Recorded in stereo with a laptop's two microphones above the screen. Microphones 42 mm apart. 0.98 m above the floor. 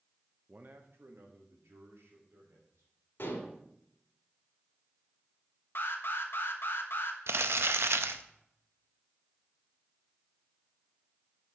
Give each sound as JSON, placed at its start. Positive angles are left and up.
{"t": 0.5, "sound": "a man speaking", "side_deg": -30, "distance_m": 0.7}
{"t": 3.2, "sound": "dishes clattering", "side_deg": 55, "distance_m": 2.0}
{"t": 5.8, "sound": "an alarm", "side_deg": 60, "distance_m": 1.1}
{"t": 7.3, "sound": "crumpling", "side_deg": -70, "distance_m": 0.5}